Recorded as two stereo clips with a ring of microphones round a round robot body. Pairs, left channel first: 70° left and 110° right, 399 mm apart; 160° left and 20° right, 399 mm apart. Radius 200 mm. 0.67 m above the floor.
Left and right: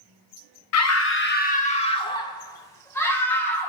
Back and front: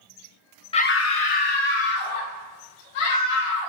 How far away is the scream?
About 0.6 m.